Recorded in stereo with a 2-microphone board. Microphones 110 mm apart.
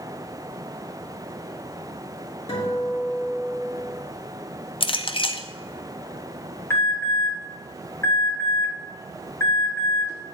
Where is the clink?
55° left (ahead or behind), 0.5 m.